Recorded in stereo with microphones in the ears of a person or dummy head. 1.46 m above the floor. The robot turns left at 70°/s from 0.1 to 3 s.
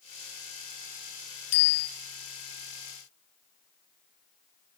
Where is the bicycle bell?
70° left (ahead or behind), 3.5 m; by 1.9 s 45° left (ahead or behind), 3.5 m.